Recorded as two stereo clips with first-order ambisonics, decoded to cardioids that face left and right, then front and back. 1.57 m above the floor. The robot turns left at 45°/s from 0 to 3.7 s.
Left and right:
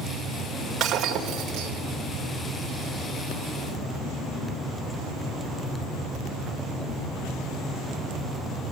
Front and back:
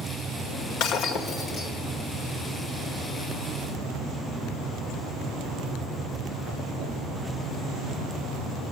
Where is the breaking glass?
30° right, 2 m; by 1.7 s 70° right, 2 m.